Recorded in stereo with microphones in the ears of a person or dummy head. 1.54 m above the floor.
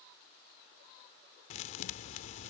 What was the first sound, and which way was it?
A thud, 45° left (ahead or behind).